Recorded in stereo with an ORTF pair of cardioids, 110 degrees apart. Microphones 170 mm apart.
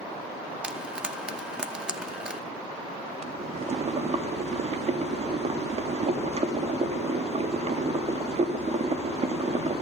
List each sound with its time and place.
0.6 s frying: 5° right, 2 m
3.2 s boiling: 40° right, 3.5 m